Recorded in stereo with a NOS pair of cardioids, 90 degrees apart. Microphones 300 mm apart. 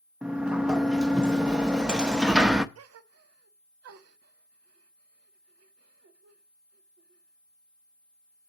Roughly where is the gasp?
Ahead right.